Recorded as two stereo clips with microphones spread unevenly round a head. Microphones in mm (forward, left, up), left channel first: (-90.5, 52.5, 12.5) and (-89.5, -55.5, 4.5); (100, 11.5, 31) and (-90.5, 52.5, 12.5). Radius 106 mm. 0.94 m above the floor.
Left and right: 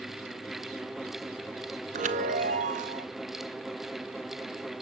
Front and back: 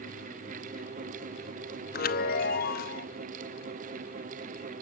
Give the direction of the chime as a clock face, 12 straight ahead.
2 o'clock.